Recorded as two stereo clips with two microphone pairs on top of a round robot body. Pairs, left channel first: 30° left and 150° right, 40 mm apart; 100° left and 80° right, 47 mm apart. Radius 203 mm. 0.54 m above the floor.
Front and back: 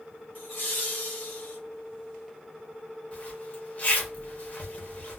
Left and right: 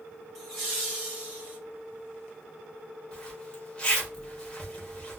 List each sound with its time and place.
0.3 s laughter: 10° left, 2.5 m; by 1.6 s 20° right, 3 m
3.1 s a zipper: 35° left, 1.5 m